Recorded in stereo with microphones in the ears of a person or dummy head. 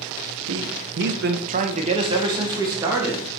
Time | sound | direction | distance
0.5 | a man speaking | 60° right (ahead or behind) | 1.1 m